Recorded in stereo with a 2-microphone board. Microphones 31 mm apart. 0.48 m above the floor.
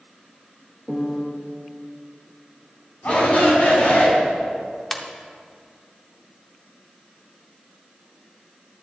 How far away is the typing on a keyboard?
I don't hear typing on a keyboard.